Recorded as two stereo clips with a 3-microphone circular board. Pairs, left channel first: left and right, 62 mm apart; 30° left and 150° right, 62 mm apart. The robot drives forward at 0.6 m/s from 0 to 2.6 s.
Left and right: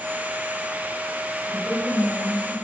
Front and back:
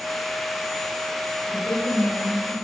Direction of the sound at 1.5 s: 10° left.